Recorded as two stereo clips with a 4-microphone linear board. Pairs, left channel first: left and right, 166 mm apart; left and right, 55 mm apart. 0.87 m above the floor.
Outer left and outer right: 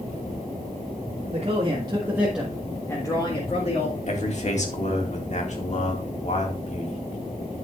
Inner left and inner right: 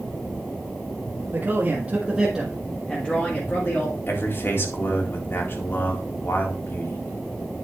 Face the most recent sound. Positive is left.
turn(degrees=45)  # may be behind; listen again after turning